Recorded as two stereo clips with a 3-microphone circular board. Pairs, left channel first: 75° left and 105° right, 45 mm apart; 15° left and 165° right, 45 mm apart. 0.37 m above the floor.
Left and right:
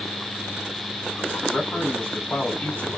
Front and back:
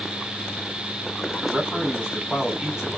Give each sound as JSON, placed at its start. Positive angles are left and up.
{"t": 1.4, "sound": "a man speaking", "azimuth_deg": 105, "distance_m": 1.8}